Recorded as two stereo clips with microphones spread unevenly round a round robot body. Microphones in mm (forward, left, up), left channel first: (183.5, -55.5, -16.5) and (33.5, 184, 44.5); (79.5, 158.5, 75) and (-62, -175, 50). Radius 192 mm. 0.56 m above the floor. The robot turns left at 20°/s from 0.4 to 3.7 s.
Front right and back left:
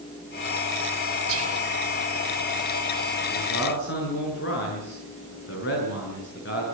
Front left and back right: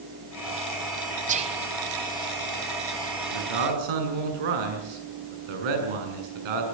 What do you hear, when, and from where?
1.3 s whispering: straight behind, 2.5 m; by 1.6 s 175° left, 2.5 m
3.3 s a man speaking: 110° right, 6.5 m; by 6.6 s 120° right, 6.5 m